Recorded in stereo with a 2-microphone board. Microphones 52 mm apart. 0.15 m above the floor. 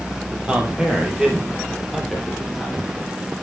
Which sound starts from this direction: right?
A man speaking, at 0.4 s.